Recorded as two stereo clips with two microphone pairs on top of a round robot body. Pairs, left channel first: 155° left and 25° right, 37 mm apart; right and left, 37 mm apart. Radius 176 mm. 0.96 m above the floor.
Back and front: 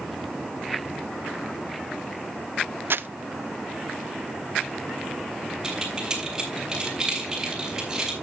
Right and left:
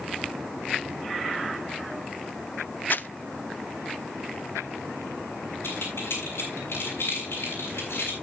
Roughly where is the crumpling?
Ahead right.